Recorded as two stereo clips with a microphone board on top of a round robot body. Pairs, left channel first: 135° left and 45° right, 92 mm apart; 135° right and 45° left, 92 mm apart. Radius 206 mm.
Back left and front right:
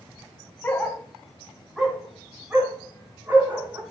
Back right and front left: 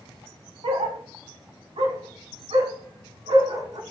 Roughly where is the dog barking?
Ahead left.